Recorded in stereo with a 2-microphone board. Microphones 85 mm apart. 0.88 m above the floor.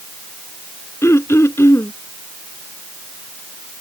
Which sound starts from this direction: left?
Throat clearing, at 1.0 s.